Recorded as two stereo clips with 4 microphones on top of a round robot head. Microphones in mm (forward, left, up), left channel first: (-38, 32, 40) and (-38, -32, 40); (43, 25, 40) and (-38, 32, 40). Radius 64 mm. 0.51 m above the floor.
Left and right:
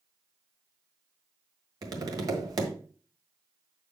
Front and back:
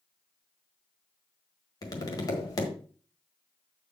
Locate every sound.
1.8 s tapping: 55° right, 1.5 m